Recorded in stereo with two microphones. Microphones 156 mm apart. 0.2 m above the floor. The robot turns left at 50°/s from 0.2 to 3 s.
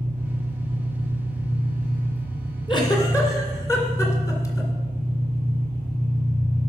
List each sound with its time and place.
0.0 s an engine running: 170° left, 6 m; by 6.7 s 30° left, 6 m
2.7 s a giggle: 30° left (ahead or behind), 2 m; by 4.7 s 20° left (ahead or behind), 2 m